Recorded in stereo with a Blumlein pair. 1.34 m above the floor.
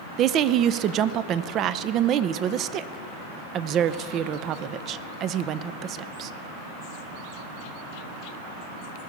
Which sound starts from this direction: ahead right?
A woman speaking, at 0.2 s.